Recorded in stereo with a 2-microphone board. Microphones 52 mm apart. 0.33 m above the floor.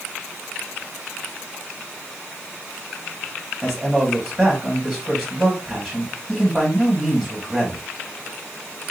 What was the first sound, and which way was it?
A man speaking, 10° right (ahead or behind).